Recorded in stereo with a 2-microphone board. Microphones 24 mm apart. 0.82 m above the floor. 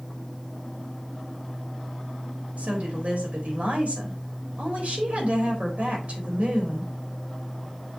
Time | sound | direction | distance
2.6 | a woman speaking | 65° right (ahead or behind) | 3.5 m